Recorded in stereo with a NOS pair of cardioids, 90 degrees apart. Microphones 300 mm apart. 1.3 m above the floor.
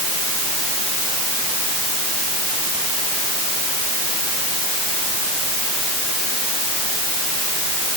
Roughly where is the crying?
I don't hear crying.